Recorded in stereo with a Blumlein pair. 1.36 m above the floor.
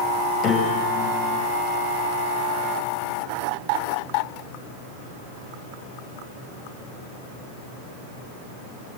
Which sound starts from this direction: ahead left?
A piano, at 0.4 s.